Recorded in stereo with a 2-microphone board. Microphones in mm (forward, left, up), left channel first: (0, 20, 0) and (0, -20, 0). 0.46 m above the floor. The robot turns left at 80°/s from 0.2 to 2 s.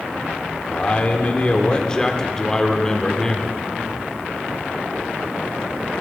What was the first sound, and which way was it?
A man speaking, 135° left.